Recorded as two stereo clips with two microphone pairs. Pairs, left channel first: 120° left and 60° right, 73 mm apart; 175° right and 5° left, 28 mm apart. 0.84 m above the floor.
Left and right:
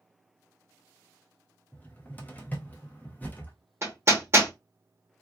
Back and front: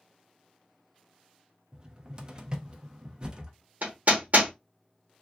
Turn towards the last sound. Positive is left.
turn(degrees=-10)